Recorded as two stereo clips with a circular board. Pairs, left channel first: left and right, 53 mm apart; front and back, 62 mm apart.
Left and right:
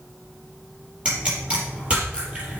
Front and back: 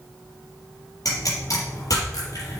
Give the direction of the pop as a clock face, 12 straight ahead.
1 o'clock.